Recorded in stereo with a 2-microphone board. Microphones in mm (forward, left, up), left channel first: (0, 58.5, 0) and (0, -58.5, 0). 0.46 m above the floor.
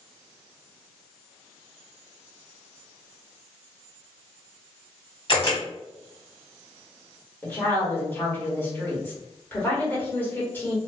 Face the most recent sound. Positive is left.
turn(degrees=15)  # may be behind; listen again after turning